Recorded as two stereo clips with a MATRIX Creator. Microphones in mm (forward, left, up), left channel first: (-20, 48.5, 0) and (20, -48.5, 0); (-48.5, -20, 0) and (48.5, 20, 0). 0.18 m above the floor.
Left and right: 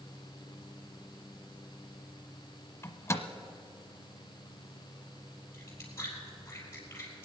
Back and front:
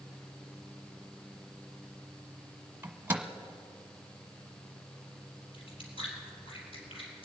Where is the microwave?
75° left, 1.0 m.